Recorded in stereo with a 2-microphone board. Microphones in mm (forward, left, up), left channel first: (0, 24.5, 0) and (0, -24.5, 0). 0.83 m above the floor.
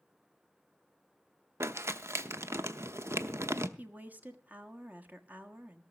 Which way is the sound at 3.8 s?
30° right (ahead or behind).